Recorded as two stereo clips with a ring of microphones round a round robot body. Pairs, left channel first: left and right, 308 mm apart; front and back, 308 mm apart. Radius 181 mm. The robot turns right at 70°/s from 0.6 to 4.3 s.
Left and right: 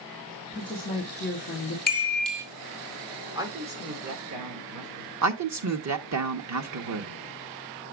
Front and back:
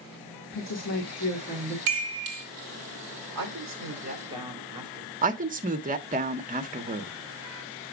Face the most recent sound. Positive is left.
turn(degrees=-115)